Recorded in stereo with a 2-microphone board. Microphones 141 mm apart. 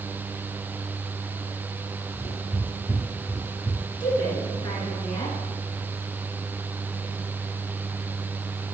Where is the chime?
I don't hear a chime.